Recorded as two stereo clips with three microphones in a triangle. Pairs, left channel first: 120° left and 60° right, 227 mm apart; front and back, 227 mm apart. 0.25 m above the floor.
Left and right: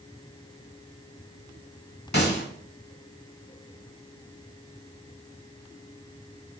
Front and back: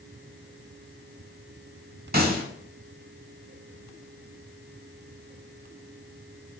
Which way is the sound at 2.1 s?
145° left.